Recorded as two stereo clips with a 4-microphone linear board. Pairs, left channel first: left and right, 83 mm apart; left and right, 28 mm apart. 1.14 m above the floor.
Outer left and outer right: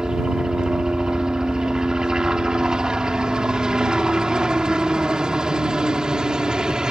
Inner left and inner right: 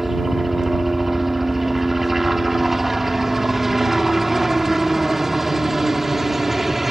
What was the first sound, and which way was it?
A helicopter, 10° right (ahead or behind).